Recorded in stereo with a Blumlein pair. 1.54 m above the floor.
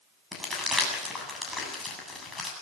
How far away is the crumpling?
About 8 m.